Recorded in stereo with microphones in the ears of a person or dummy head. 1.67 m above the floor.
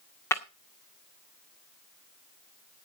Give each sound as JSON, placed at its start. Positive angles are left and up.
{"t": 0.3, "sound": "breaking glass", "side_deg": 15, "distance_m": 1.9}